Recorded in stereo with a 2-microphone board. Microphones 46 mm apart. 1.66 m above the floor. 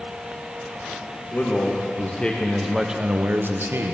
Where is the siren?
No siren in this recording.